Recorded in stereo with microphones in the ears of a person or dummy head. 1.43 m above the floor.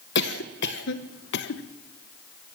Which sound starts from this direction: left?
A cough, at 0.1 s.